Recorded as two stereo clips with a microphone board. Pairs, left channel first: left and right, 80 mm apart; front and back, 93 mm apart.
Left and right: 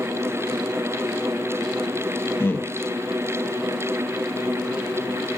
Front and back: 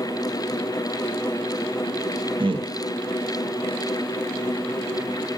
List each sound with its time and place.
2.4 s a man speaking: 155° left, 1.0 m